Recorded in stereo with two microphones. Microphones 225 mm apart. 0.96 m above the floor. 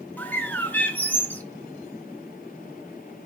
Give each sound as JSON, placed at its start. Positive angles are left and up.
{"t": 0.2, "sound": "a bird", "side_deg": 10, "distance_m": 0.7}